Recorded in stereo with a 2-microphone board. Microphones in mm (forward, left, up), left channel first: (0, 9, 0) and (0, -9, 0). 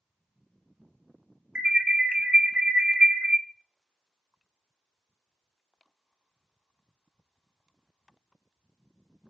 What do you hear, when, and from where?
1.6 s an alarm: 70° right (ahead or behind), 0.6 m